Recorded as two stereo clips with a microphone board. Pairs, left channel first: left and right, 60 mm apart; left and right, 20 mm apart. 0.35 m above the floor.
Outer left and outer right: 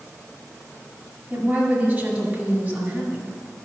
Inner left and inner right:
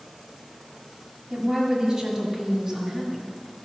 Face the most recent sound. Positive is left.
turn(degrees=-25)  # may be behind; listen again after turning